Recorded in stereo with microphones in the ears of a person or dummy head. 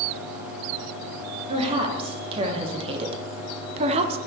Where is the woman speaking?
35° right (ahead or behind), 3 m; by 4.2 s 40° right (ahead or behind), 1.7 m.